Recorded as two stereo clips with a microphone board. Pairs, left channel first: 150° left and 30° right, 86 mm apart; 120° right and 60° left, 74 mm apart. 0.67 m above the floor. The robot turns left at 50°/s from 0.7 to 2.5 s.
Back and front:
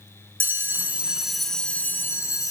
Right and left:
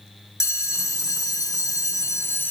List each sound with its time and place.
0.4 s a bell: 90° right, 0.6 m; by 2.5 s straight behind, 0.6 m